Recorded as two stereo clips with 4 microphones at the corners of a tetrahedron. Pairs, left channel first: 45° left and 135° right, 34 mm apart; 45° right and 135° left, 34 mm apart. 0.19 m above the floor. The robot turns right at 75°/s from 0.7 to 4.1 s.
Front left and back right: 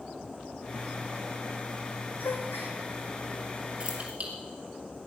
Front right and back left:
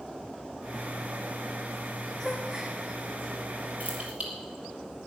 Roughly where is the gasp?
Ahead left.